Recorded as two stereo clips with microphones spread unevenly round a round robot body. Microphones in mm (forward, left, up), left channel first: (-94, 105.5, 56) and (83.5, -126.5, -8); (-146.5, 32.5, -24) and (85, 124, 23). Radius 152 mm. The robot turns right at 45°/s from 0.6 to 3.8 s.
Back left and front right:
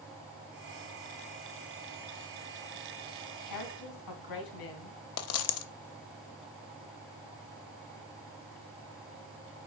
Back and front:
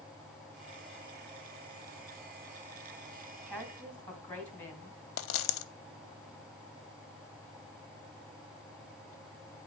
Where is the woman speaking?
110° left, 2.5 m; by 5.0 s 125° left, 2.5 m.